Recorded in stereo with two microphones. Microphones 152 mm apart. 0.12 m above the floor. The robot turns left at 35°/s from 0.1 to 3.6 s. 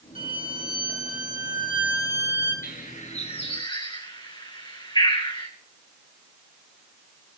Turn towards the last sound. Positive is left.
turn(degrees=30)  # may be behind; listen again after turning